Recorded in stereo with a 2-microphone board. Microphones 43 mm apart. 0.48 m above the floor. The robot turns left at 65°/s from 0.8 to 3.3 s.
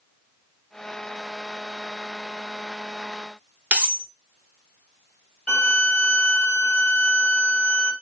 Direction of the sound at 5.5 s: 25° left (ahead or behind).